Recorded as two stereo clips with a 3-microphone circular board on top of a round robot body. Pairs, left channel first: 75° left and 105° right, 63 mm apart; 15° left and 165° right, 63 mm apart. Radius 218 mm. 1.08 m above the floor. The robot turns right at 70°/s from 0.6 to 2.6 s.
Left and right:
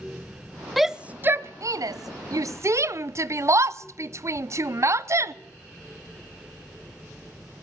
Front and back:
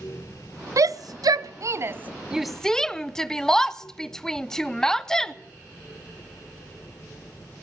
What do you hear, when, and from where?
0.8 s a shout: 165° left, 0.7 m; by 5.3 s 65° right, 0.7 m